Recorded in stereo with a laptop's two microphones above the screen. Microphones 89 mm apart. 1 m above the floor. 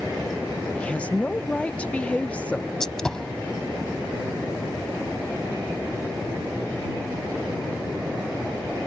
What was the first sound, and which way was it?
A woman speaking, 15° left (ahead or behind).